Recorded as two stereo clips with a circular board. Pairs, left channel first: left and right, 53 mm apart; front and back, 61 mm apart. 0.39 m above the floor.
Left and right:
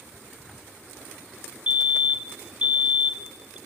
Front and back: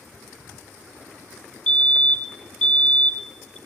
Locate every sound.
1.7 s a fire alarm: 55° right, 2.5 m